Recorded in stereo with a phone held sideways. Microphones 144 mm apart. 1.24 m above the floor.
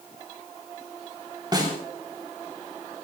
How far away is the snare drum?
About 4.5 m.